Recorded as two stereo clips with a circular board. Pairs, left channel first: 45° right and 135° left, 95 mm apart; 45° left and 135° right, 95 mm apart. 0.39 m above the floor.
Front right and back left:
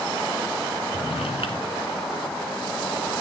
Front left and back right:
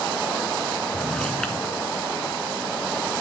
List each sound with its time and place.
0.9 s a drawer: 40° right, 2.5 m